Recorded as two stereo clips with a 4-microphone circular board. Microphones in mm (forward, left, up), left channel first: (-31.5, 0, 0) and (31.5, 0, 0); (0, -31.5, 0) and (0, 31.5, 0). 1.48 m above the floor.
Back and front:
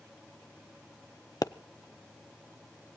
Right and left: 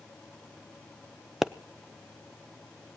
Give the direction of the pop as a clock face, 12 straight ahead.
6 o'clock.